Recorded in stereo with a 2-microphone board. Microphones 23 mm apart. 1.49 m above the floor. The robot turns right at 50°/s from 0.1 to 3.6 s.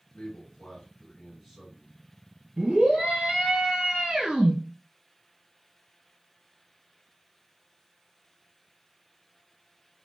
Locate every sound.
0.1 s a man speaking: 115° left, 1.7 m; by 2.0 s 155° right, 1.7 m
2.6 s a scream: 130° right, 1.6 m; by 4.5 s 75° right, 1.6 m